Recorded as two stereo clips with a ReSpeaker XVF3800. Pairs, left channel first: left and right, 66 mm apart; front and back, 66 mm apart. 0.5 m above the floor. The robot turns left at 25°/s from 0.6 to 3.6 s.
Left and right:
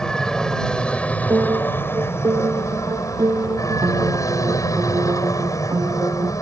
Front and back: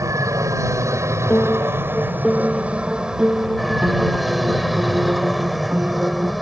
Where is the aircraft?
165° left; by 6.4 s 90° left.